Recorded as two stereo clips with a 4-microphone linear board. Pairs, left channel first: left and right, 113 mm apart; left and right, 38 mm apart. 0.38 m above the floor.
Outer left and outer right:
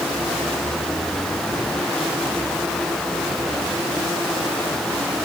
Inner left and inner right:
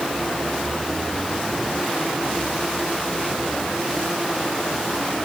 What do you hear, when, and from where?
Only background noise.